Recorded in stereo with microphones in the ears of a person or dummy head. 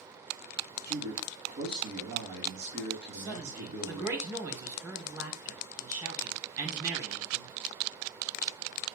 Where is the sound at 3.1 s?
15° right (ahead or behind), 3.5 m.